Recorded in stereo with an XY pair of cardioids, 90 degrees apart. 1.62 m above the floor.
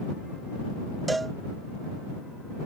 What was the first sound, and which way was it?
A cowbell, 25° right.